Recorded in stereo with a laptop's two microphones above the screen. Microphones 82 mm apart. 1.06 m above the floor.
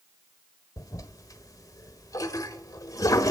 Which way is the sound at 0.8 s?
45° left (ahead or behind).